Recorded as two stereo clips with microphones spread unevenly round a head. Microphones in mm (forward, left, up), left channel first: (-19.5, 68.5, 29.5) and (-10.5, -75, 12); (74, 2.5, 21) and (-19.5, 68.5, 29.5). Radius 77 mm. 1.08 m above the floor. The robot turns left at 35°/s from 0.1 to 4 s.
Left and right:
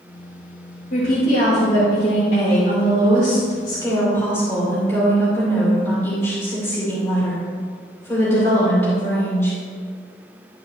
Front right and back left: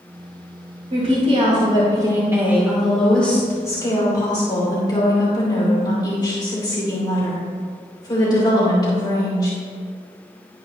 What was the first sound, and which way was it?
A woman speaking, 130° left.